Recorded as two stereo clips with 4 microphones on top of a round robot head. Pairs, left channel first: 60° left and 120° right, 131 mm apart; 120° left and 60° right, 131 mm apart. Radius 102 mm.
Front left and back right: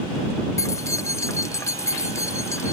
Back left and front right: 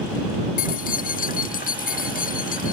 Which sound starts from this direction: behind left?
Keys jangling, at 0.6 s.